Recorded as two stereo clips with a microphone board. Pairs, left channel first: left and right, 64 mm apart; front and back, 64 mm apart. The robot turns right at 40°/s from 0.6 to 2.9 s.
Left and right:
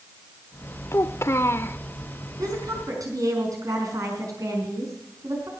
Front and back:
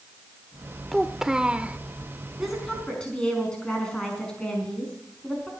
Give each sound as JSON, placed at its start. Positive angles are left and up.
{"t": 0.9, "sound": "a child speaking", "azimuth_deg": 90, "distance_m": 0.7}
{"t": 2.4, "sound": "a woman speaking", "azimuth_deg": -95, "distance_m": 5.0}